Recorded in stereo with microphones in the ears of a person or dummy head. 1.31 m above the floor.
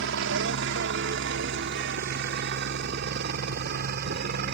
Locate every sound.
0.0 s a helicopter: 60° right (ahead or behind); by 4.5 s 50° right (ahead or behind)